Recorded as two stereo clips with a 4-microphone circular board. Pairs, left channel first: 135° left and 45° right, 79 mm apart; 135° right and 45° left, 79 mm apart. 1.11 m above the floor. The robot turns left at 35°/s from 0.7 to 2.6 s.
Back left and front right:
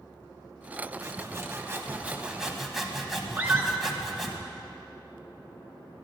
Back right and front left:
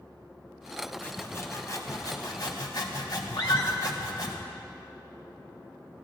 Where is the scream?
110° right, 2 m.